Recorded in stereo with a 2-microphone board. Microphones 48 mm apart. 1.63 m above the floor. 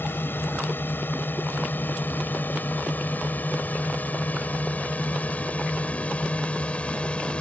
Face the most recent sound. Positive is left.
turn(degrees=25)  # may be behind; listen again after turning